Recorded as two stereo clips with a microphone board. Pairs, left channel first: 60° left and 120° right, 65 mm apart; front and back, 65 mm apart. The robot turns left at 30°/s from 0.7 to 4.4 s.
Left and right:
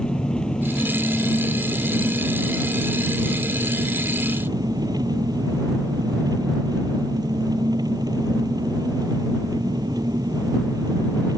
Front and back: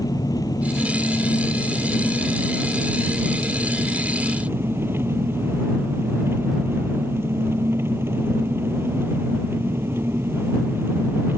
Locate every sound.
0.0 s an engine running: 15° right; by 11.4 s 125° right